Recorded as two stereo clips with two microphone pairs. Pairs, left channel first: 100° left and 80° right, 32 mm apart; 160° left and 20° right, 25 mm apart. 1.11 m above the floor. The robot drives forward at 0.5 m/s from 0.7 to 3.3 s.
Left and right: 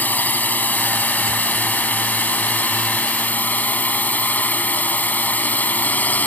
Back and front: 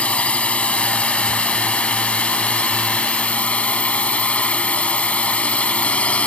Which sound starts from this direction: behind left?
A drone, at 0.0 s.